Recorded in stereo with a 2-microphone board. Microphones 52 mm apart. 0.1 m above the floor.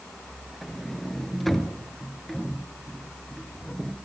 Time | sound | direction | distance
0.6 | a sliding door | 5° left (ahead or behind) | 1.3 m